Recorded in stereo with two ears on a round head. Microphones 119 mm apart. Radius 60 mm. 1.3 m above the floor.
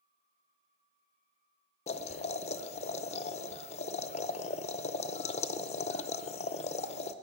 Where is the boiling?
50° left (ahead or behind), 0.5 m.